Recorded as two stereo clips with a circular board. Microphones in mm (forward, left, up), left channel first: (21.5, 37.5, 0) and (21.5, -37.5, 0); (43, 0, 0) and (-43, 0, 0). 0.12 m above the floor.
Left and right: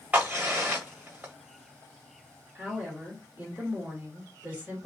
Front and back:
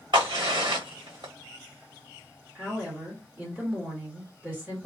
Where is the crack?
165° right, 1.8 m.